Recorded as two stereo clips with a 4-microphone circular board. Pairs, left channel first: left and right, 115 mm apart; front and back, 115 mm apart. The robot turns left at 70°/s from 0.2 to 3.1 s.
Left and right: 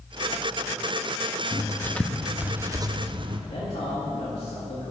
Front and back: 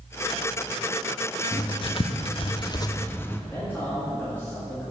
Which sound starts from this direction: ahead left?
Writing, at 1.5 s.